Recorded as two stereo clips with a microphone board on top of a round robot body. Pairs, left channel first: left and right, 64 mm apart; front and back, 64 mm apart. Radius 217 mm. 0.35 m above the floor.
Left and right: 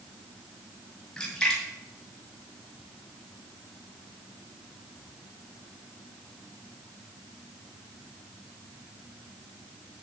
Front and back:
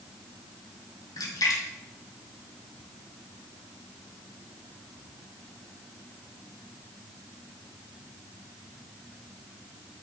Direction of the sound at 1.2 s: 10° left.